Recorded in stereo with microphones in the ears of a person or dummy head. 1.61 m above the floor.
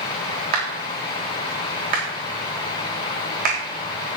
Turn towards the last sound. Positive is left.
turn(degrees=-45)  # may be behind; listen again after turning